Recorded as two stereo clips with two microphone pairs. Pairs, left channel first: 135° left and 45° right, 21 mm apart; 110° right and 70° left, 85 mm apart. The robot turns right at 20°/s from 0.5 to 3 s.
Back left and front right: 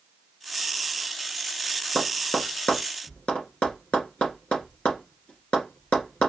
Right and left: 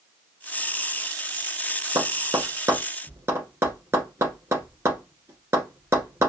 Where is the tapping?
105° left, 1.9 m; by 6.3 s 125° left, 1.9 m.